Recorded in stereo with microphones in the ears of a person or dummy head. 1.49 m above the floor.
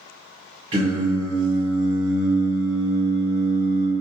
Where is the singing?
30° right (ahead or behind), 1.3 m.